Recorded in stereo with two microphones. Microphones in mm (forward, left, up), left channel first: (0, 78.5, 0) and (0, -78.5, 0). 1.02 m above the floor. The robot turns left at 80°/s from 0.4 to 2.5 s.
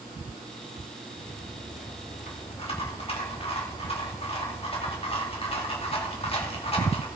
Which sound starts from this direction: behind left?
A rattle, at 1.2 s.